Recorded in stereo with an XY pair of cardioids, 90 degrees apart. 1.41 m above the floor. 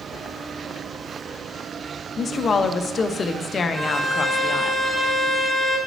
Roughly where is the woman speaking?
Ahead left.